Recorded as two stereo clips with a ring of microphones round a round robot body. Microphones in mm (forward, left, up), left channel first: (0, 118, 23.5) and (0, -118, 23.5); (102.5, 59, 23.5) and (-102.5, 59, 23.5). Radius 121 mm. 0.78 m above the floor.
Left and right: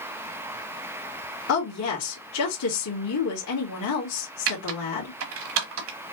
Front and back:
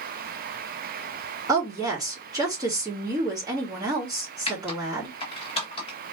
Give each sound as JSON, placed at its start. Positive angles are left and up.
{"t": 1.5, "sound": "a woman speaking", "azimuth_deg": 110, "distance_m": 1.7}
{"t": 4.5, "sound": "typing on a keyboard", "azimuth_deg": -65, "distance_m": 1.0}